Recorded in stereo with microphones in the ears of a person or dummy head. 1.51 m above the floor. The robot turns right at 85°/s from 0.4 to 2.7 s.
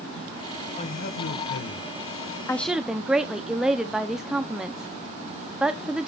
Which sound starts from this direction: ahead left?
A man speaking, at 0.8 s.